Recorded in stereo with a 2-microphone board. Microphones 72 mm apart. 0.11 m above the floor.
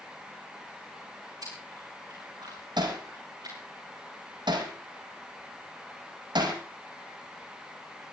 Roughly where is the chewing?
Right.